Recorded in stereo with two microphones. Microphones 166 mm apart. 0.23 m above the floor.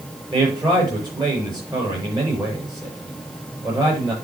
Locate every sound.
0.3 s a man speaking: 25° right (ahead or behind), 5.5 m